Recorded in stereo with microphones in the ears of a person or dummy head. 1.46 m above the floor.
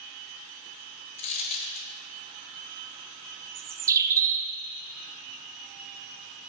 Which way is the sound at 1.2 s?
40° left (ahead or behind).